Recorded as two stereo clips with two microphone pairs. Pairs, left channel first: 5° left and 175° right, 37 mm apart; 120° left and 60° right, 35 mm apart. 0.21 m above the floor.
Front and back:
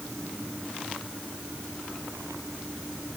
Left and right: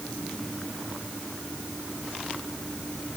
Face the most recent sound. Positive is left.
No sound to turn to.